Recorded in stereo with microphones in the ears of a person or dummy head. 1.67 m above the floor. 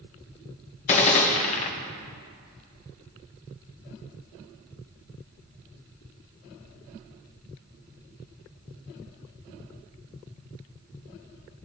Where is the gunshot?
35° left (ahead or behind), 1.0 m.